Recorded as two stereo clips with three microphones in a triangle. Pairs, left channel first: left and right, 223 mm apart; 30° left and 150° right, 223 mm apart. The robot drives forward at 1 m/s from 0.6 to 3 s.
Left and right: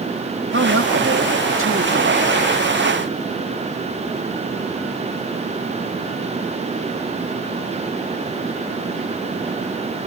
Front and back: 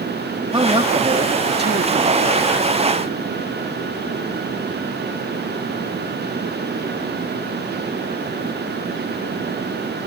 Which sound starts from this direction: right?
A man speaking, at 0.5 s.